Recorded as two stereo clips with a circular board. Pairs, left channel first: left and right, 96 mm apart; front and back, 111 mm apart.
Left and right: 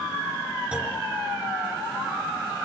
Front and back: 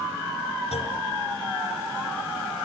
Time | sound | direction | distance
0.7 | a clunk | 15° right | 4.5 m